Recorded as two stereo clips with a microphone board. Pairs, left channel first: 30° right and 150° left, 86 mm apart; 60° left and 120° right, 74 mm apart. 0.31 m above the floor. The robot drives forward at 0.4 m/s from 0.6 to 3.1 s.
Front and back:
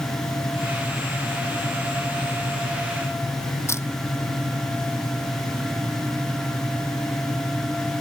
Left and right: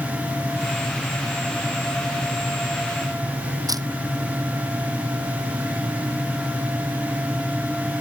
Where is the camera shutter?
85° right.